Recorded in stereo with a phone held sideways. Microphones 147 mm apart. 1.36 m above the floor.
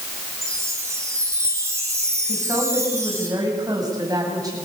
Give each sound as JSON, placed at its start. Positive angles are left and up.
{"t": 0.4, "sound": "a chime", "side_deg": -20, "distance_m": 5.0}
{"t": 2.3, "sound": "a woman speaking", "side_deg": -25, "distance_m": 8.0}